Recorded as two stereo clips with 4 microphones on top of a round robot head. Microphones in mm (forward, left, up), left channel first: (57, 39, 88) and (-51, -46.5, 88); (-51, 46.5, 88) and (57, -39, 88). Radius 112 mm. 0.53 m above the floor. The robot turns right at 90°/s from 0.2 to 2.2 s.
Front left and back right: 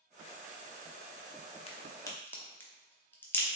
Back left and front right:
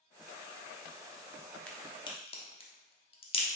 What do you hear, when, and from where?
1.7 s a crack: 60° left, 0.8 m; by 3.5 s 110° left, 0.8 m